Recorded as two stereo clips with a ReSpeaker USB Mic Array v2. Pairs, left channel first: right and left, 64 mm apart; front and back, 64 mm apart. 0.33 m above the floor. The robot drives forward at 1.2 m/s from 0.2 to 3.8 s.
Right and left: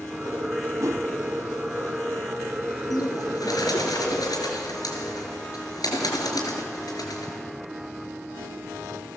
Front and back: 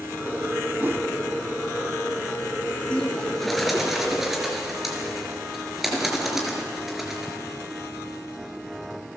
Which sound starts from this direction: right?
A bird, at 2.9 s.